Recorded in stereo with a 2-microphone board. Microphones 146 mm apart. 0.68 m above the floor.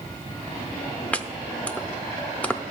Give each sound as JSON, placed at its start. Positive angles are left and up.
{"t": 1.1, "sound": "chopping", "side_deg": 10, "distance_m": 0.6}